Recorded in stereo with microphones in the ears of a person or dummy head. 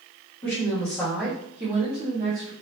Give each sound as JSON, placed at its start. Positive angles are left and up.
{"t": 0.4, "sound": "a woman speaking", "side_deg": 20, "distance_m": 1.1}